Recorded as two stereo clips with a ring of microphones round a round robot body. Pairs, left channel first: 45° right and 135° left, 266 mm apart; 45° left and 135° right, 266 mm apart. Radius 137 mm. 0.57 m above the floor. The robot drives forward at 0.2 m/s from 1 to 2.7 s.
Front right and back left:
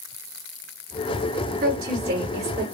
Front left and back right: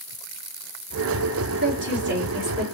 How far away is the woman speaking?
About 2 m.